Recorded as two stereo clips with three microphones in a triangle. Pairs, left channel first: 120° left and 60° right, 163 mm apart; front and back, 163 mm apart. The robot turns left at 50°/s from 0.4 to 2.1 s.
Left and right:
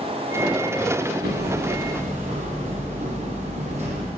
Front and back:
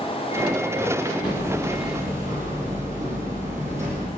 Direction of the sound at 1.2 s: 60° right.